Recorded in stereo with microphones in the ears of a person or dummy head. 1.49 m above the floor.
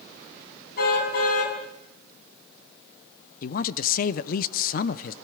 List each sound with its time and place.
0.8 s a car horn: 65° left (ahead or behind), 5.5 m
3.4 s a woman speaking: 55° left (ahead or behind), 0.8 m